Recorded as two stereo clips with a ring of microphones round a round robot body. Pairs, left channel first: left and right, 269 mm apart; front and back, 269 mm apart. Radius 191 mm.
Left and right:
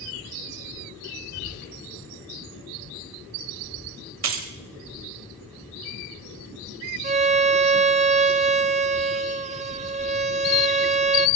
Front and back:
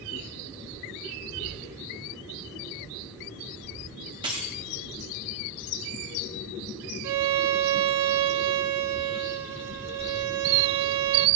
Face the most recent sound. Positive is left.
turn(degrees=-160)